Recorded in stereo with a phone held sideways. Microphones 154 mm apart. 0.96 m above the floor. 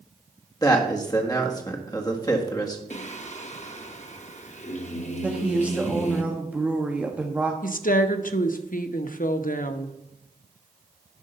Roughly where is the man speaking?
Left.